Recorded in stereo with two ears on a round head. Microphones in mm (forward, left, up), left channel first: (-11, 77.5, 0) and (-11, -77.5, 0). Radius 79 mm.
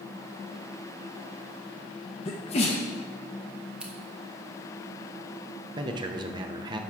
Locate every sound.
2.2 s a sneeze: 35° left (ahead or behind), 0.8 m
3.8 s scissors: 5° right (ahead or behind), 1.4 m
5.8 s a man speaking: 25° right (ahead or behind), 0.8 m